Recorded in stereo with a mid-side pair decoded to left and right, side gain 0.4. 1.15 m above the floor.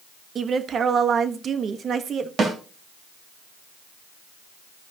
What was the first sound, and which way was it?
A woman speaking, 55° right.